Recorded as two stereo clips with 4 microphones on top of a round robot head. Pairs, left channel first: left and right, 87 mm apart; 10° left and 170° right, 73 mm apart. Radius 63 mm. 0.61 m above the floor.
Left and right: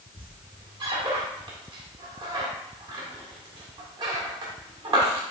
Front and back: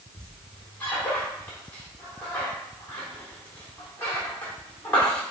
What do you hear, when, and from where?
0.2 s a squeak: 60° right, 1.3 m